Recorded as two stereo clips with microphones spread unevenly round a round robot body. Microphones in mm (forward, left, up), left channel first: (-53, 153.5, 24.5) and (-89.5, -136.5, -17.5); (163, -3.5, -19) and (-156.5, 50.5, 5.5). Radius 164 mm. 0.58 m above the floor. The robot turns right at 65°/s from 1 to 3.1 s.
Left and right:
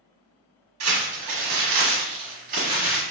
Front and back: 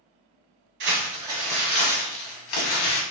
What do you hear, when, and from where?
0.8 s crumpling: 130° right, 1.6 m; by 3.0 s straight ahead, 1.6 m